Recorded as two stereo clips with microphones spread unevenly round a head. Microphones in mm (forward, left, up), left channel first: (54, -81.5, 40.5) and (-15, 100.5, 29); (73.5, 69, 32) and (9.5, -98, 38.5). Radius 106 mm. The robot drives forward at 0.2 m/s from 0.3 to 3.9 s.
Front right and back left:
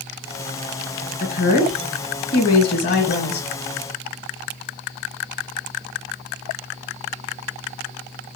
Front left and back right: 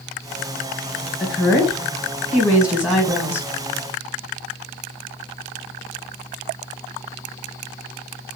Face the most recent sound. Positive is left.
turn(degrees=-35)